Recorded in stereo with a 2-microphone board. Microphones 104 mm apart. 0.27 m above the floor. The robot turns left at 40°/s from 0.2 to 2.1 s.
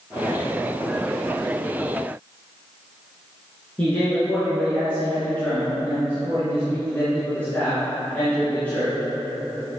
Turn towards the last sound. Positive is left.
turn(degrees=15)  # may be behind; listen again after turning